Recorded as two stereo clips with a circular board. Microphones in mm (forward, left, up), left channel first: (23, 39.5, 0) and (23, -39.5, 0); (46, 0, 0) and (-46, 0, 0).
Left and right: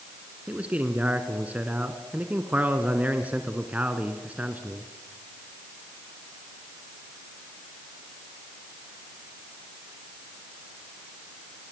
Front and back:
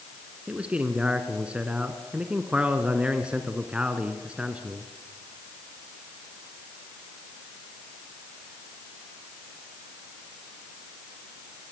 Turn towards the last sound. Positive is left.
turn(degrees=-125)